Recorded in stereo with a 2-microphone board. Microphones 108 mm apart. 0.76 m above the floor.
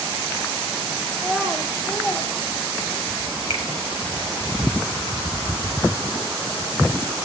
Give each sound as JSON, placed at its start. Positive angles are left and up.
{"t": 1.1, "sound": "a child speaking", "side_deg": 25, "distance_m": 1.0}
{"t": 3.5, "sound": "a finger snap", "side_deg": 75, "distance_m": 4.5}